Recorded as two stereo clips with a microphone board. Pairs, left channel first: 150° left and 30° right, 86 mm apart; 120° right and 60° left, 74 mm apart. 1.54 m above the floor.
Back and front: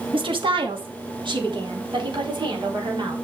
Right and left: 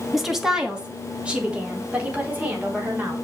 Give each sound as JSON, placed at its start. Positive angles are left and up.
{"t": 0.1, "sound": "a woman speaking", "azimuth_deg": -30, "distance_m": 2.5}